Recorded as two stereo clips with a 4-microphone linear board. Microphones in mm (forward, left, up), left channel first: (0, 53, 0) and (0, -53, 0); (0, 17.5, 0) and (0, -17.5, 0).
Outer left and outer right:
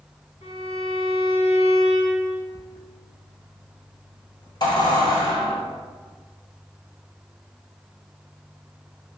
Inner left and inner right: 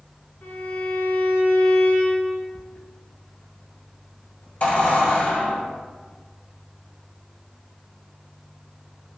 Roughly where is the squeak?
Left.